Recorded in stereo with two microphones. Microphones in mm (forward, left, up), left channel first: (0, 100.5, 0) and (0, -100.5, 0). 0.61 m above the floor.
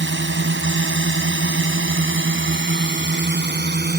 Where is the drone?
70° right (ahead or behind); by 4.0 s 55° right (ahead or behind).